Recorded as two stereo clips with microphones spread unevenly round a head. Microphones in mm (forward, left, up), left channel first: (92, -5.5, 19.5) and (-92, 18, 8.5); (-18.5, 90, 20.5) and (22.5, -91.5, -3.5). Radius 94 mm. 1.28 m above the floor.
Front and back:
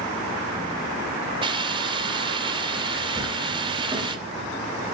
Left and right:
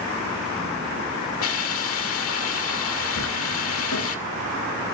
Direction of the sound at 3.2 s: 100° left.